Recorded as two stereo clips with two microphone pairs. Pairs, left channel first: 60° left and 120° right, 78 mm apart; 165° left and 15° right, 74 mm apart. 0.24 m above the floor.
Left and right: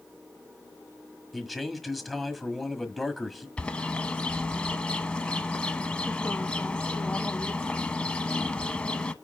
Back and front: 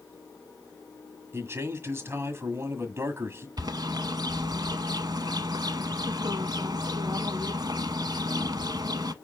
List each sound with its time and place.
1.3 s a man speaking: 30° right, 1.4 m
3.6 s a bird: 15° right, 0.7 m